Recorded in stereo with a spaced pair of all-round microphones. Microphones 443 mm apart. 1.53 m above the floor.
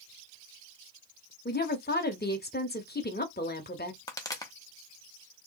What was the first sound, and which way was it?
A woman speaking, 20° left (ahead or behind).